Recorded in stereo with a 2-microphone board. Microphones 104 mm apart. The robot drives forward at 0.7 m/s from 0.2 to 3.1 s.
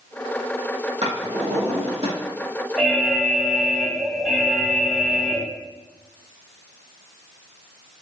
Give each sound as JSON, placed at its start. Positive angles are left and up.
{"t": 1.0, "sound": "a drawer", "side_deg": -85, "distance_m": 4.0}
{"t": 2.8, "sound": "an alarm", "side_deg": 5, "distance_m": 1.3}